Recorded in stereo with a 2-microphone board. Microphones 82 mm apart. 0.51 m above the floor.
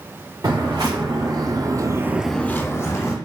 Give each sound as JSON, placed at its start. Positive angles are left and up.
{"t": 0.4, "sound": "footsteps", "side_deg": -50, "distance_m": 2.5}